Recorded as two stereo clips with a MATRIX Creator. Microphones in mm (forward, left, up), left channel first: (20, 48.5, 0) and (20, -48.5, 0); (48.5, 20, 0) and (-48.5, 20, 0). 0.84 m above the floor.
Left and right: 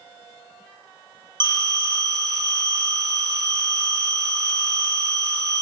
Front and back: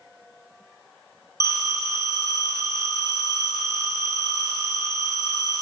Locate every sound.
1.4 s a phone ringing: 50° right, 0.8 m